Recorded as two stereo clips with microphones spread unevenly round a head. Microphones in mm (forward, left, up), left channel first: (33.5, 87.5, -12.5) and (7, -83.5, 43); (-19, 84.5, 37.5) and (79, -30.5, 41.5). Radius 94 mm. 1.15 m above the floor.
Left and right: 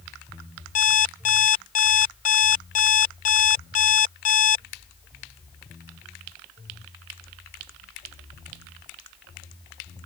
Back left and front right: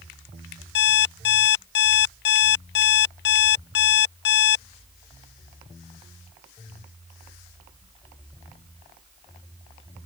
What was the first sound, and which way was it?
An alarm clock, 140° left.